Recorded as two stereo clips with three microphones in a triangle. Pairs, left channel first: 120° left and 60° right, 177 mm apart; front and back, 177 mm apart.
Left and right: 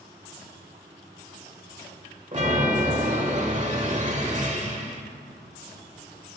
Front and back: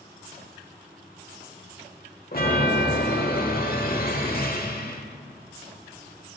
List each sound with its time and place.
2.3 s a chime: 20° right, 1.3 m